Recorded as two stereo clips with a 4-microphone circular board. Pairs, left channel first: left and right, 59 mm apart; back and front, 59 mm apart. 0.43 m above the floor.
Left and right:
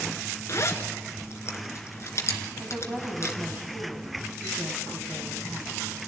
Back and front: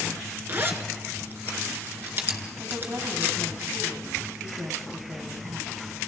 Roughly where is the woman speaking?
Ahead.